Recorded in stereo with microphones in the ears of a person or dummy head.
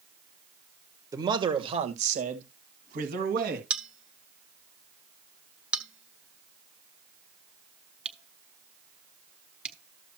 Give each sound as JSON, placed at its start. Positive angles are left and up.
{"t": 1.1, "sound": "a man speaking", "side_deg": -20, "distance_m": 1.4}
{"t": 3.7, "sound": "a bell", "side_deg": -5, "distance_m": 1.3}